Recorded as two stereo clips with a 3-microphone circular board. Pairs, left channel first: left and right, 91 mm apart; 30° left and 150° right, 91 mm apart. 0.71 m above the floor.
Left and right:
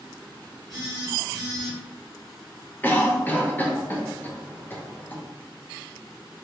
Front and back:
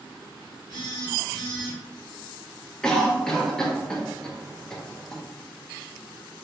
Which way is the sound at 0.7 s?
5° right.